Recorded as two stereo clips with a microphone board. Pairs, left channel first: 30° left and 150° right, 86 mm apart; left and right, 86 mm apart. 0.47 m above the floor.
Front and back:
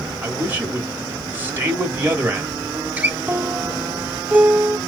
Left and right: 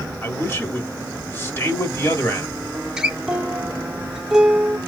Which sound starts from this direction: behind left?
A man speaking, at 0.2 s.